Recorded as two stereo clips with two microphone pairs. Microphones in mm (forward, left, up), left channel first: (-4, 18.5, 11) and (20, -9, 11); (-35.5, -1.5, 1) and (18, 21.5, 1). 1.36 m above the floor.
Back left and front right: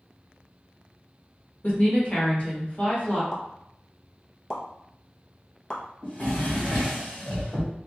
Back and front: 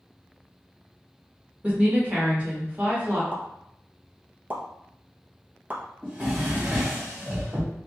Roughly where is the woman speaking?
Left.